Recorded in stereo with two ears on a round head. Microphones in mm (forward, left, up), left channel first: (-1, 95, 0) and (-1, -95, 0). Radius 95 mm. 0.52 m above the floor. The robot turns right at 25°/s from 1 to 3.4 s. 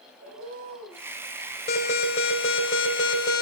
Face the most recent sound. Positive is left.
turn(degrees=95)